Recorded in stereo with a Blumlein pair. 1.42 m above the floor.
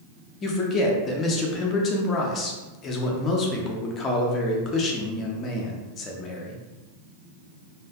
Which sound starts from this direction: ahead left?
A man speaking, at 0.4 s.